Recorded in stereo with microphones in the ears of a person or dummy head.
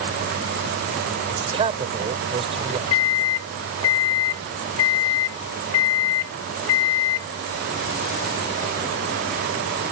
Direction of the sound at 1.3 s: 25° right (ahead or behind).